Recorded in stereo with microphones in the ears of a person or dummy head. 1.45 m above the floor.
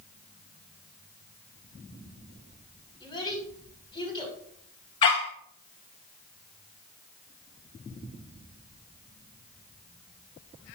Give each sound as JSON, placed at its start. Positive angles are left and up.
{"t": 3.0, "sound": "a child speaking", "side_deg": 30, "distance_m": 5.5}
{"t": 5.0, "sound": "a dog barking", "side_deg": 25, "distance_m": 1.1}